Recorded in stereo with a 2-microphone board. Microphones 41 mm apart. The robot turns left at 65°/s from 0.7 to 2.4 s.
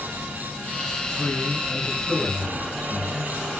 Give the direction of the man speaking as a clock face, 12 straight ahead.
10 o'clock.